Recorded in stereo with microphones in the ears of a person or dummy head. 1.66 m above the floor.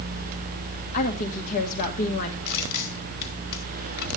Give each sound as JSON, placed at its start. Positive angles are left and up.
{"t": 0.9, "sound": "a woman speaking", "side_deg": 50, "distance_m": 1.8}
{"t": 2.5, "sound": "crushing", "side_deg": 55, "distance_m": 3.0}